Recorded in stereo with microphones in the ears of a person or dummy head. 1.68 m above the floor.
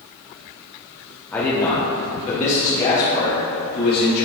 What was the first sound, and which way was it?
A man speaking, 10° left (ahead or behind).